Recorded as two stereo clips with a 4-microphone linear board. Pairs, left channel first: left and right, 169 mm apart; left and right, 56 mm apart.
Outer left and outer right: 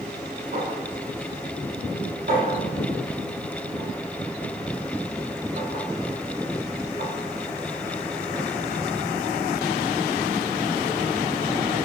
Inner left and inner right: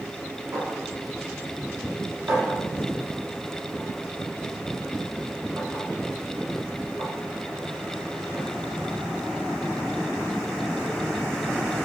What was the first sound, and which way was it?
A clink, 55° right (ahead or behind).